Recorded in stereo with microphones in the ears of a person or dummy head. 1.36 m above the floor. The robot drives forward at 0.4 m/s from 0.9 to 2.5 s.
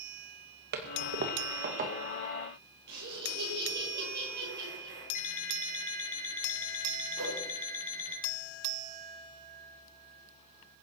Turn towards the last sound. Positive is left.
turn(degrees=-80)